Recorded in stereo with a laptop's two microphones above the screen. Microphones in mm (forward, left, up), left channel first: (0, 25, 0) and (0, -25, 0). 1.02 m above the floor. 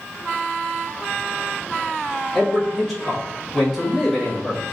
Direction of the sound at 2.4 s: Centre (ahead or behind).